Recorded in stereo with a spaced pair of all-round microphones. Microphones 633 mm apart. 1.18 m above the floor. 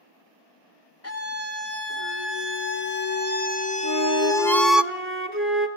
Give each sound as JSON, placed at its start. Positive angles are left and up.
{"t": 1.0, "sound": "a scream", "side_deg": 20, "distance_m": 3.0}
{"t": 3.8, "sound": "a flute", "side_deg": -20, "distance_m": 2.5}